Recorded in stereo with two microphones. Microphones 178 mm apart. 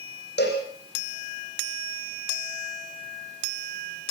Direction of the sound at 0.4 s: 70° left (ahead or behind).